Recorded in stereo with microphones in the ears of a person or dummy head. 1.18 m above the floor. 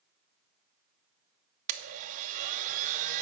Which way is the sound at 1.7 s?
45° right (ahead or behind).